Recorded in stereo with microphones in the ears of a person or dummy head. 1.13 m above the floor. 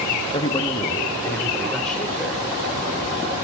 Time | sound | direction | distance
0.3 | a man speaking | 30° left (ahead or behind) | 1.2 m